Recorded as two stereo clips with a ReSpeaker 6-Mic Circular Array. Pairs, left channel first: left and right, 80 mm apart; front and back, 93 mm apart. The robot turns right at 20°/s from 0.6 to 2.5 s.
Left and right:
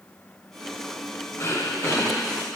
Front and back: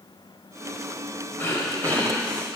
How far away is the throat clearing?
About 1.4 m.